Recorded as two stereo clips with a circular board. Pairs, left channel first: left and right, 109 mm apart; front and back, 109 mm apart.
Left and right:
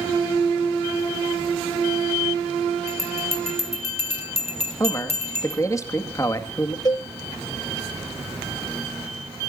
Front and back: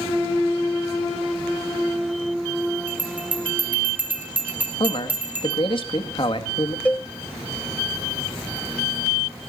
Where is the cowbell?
70° left, 0.8 m.